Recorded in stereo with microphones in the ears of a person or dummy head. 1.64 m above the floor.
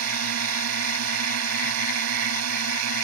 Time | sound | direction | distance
0.0 | a drone | 85° right | ?